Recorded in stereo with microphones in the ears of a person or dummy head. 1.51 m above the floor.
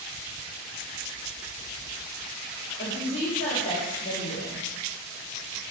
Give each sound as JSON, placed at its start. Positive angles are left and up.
{"t": 2.8, "sound": "a woman speaking", "side_deg": 35, "distance_m": 1.3}